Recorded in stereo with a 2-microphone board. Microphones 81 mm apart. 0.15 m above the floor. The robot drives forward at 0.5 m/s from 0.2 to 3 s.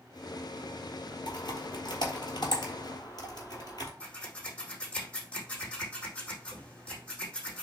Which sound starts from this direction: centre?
Scissors, at 4.0 s.